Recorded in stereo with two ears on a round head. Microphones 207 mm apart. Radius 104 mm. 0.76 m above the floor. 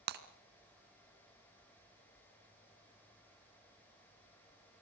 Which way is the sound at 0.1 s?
45° right (ahead or behind).